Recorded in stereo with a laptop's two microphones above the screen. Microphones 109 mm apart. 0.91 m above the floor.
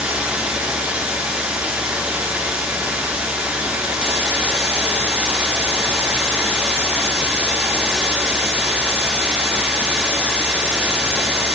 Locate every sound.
0.0 s running water: 10° right (ahead or behind), 4.5 m